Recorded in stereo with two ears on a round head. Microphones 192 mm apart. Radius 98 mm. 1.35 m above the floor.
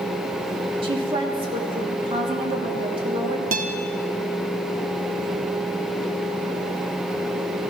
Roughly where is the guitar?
Right.